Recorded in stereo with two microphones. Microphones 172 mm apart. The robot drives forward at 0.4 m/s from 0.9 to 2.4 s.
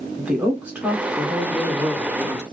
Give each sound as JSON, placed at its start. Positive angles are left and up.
{"t": 0.2, "sound": "a woman speaking", "side_deg": -5, "distance_m": 1.8}